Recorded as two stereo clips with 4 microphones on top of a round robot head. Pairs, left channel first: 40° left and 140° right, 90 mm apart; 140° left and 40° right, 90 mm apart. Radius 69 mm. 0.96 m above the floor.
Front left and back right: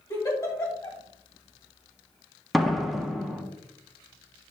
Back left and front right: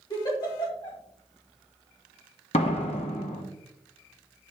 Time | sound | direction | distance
0.1 | a giggle | 95° left | 2 m
2.5 | a door slam | 130° left | 0.9 m